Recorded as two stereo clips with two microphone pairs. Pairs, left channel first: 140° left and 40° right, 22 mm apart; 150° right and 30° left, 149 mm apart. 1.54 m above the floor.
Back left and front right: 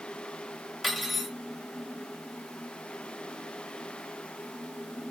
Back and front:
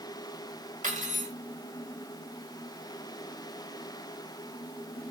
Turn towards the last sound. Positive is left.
turn(degrees=50)